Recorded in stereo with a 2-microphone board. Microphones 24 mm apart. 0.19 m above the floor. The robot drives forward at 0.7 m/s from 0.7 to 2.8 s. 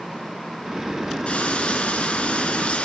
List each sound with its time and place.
1.3 s frying: 60° left (ahead or behind), 2.5 m; by 2.9 s 55° left (ahead or behind), 2.5 m